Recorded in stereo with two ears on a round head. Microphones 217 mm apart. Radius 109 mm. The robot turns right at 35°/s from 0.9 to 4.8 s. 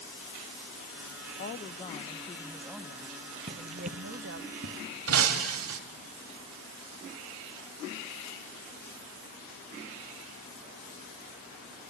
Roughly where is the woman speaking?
Behind left.